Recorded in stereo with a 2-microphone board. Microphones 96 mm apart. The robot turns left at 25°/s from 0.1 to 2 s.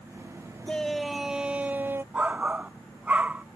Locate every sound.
0.7 s a shout: 10° left; by 2.0 s 25° right
2.1 s a shout: 15° right (ahead or behind)